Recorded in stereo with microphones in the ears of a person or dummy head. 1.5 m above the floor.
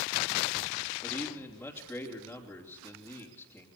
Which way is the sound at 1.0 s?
10° left (ahead or behind).